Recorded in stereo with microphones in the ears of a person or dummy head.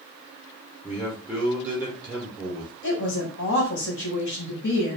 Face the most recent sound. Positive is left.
turn(degrees=60)  # may be behind; listen again after turning